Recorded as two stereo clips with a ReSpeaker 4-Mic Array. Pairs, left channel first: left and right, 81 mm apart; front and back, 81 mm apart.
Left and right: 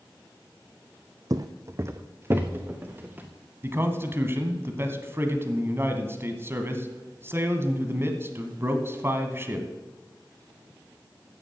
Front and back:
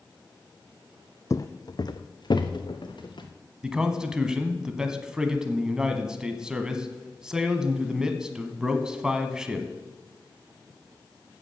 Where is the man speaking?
110° right, 1.2 m.